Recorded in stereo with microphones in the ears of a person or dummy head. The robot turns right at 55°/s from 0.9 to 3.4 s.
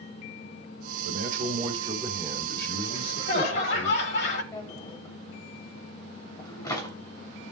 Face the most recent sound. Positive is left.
turn(degrees=25)  # may be behind; listen again after turning